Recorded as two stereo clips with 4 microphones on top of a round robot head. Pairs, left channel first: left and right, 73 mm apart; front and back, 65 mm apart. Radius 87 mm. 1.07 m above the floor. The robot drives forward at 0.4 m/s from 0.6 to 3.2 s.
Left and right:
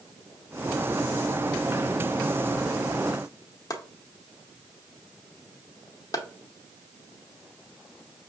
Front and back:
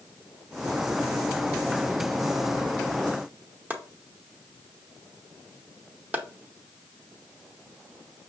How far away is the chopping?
About 0.7 m.